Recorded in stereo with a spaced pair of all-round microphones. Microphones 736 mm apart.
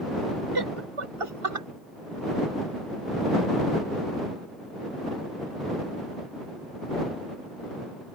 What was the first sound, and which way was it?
Laughter, 35° right (ahead or behind).